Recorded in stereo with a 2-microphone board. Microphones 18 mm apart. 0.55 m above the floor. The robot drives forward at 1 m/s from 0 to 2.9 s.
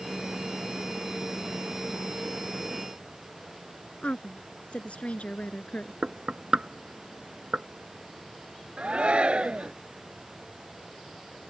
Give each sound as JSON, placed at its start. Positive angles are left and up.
{"t": 4.0, "sound": "a woman speaking", "side_deg": 80}
{"t": 6.0, "sound": "knocking", "side_deg": -55}
{"t": 8.8, "sound": "a shout", "side_deg": -60}